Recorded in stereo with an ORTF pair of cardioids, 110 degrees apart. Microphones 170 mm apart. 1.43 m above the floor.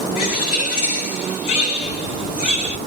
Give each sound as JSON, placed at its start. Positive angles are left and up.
{"t": 0.2, "sound": "a bird", "azimuth_deg": 55, "distance_m": 3.5}